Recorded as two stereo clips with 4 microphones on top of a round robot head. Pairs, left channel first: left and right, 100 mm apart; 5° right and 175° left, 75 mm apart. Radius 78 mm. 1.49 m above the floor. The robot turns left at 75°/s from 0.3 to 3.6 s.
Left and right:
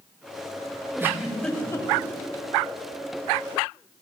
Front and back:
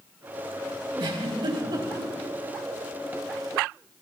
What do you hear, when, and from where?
1.0 s a giggle: 150° right, 3.5 m; by 2.1 s 125° left, 3.5 m